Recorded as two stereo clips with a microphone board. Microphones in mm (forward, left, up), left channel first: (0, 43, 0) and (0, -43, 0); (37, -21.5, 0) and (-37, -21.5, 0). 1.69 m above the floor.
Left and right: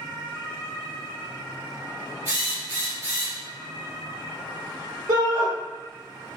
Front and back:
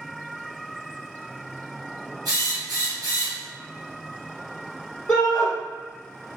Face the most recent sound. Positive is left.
turn(degrees=-70)